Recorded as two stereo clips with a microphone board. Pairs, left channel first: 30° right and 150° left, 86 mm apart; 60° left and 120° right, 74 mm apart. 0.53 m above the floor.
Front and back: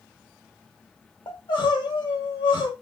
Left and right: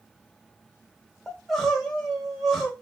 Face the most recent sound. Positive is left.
turn(degrees=-35)